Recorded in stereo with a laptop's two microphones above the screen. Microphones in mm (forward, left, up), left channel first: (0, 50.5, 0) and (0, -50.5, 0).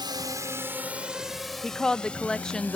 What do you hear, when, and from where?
0.0 s a drone: 50° right (ahead or behind); by 2.8 s 15° left (ahead or behind)
1.6 s a woman speaking: 5° left (ahead or behind)